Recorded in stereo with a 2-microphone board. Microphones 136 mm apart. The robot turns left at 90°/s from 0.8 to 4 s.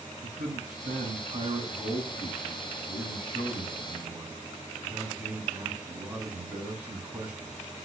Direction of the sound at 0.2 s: 85° right.